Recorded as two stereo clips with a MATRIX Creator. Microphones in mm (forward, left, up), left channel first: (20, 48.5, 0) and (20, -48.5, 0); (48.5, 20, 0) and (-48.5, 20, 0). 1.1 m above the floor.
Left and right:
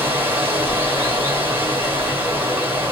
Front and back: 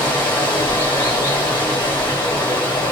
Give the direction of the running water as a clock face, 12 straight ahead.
1 o'clock.